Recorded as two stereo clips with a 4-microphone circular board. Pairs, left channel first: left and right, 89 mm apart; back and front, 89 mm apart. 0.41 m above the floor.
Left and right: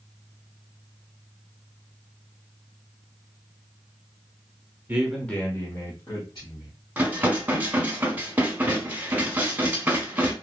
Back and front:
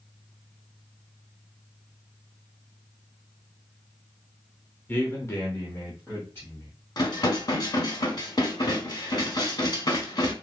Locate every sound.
4.9 s a man speaking: 135° right, 0.8 m; by 6.7 s 115° left, 2.5 m
7.0 s dishes clattering: 160° right, 1.1 m